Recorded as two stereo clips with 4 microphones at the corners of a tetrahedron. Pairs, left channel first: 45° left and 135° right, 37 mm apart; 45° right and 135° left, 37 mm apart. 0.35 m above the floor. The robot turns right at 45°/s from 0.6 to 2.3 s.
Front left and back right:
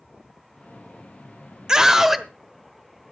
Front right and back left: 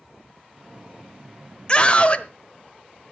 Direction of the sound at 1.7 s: 80° right.